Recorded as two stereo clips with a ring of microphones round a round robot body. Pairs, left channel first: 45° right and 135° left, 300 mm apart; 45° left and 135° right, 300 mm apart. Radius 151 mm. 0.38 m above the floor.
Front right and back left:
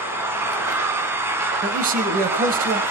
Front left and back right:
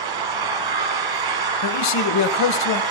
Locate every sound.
0.0 s an engine running: 140° right, 2 m
1.6 s a man speaking: 75° left, 1.7 m